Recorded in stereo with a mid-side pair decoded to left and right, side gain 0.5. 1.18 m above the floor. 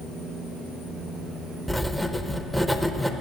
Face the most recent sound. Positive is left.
turn(degrees=5)